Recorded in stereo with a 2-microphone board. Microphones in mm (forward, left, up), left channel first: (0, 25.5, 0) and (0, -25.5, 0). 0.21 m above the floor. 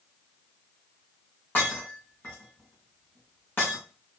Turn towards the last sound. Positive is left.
turn(degrees=40)  # may be behind; listen again after turning